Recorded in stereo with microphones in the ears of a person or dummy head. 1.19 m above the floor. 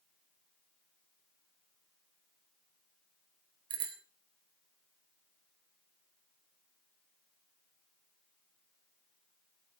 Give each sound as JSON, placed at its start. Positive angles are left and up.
{"t": 3.7, "sound": "a bicycle bell", "side_deg": -20, "distance_m": 2.5}